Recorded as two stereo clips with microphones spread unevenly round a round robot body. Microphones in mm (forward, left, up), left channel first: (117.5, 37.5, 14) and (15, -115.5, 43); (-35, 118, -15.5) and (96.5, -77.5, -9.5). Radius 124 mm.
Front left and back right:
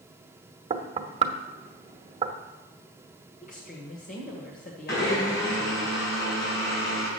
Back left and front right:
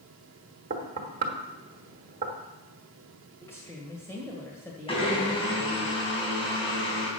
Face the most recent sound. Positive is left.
turn(degrees=60)